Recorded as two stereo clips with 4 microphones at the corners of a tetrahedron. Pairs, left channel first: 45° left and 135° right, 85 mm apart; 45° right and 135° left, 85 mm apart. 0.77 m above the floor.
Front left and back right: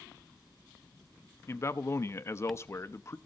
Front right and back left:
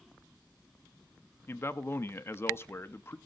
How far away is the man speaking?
About 0.8 m.